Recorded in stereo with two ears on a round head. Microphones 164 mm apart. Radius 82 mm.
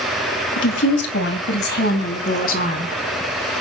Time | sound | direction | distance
0.6 | a woman speaking | 75° left (ahead or behind) | 2.5 m